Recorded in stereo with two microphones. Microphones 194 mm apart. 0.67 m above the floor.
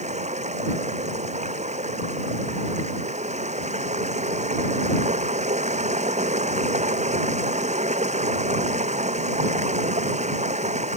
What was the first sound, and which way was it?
Running water, 40° right (ahead or behind).